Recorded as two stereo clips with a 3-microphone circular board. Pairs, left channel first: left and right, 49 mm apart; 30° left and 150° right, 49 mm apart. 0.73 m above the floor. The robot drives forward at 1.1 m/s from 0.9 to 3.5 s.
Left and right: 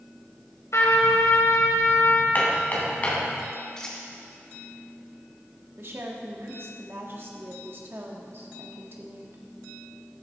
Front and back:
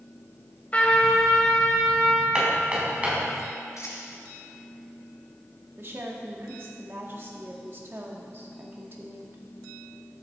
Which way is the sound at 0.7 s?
90° left.